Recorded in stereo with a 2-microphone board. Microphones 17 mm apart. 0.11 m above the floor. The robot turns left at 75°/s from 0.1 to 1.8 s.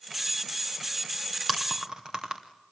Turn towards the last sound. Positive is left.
turn(degrees=-40)  # may be behind; listen again after turning